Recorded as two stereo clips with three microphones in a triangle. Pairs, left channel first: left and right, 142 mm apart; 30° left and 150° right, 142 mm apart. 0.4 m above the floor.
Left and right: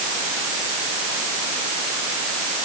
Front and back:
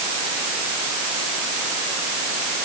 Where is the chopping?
No chopping in this recording.